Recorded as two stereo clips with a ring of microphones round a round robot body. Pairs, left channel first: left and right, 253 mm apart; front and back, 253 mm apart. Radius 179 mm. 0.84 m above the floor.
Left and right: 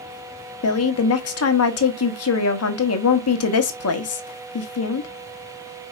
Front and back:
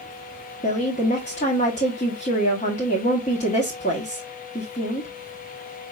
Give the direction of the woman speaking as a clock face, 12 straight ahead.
10 o'clock.